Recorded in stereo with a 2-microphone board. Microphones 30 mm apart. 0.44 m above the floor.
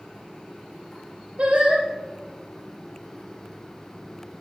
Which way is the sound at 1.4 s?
45° right (ahead or behind).